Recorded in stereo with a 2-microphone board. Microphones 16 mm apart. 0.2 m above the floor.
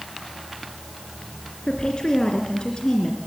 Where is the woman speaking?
65° left (ahead or behind), 2.5 m.